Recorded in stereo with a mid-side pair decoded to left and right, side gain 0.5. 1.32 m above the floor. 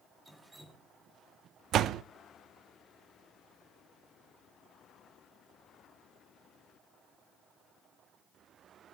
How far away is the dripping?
About 2.5 m.